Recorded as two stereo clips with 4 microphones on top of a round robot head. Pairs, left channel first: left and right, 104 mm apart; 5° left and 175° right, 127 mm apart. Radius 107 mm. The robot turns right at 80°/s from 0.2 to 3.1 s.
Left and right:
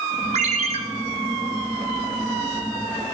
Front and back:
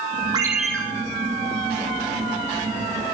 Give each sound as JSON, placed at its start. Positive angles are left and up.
{"t": 0.3, "sound": "a ringtone", "azimuth_deg": -110, "distance_m": 2.5}